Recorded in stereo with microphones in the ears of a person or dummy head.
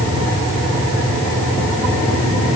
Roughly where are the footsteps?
No footsteps in this recording.